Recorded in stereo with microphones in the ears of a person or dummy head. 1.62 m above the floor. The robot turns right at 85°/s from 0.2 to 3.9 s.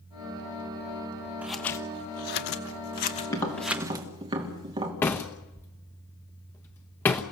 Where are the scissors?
10° right (ahead or behind), 1.3 m; by 4.1 s 20° right (ahead or behind), 1.3 m.